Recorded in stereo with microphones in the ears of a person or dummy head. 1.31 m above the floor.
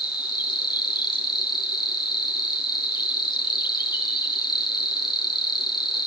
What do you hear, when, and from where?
0.0 s an insect: 20° left (ahead or behind), 2 m